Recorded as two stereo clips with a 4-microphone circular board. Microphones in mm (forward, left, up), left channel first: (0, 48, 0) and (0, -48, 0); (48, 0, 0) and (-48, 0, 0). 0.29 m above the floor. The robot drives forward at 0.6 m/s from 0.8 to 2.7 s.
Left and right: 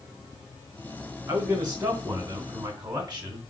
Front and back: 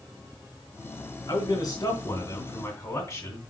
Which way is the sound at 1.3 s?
20° right.